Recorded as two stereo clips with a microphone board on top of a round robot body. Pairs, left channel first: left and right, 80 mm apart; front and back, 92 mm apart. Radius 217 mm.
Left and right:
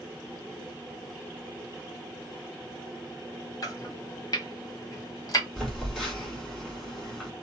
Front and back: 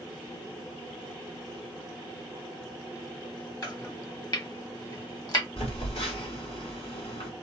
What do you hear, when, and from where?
3.6 s chopping: 45° left, 1.4 m
5.6 s a phone buzzing: 5° left, 2.5 m